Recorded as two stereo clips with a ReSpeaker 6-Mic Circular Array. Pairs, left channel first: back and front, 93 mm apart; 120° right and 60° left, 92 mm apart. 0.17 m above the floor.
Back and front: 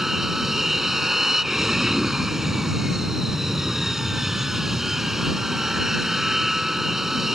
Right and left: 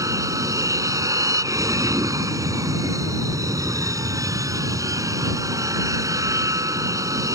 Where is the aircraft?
85° left.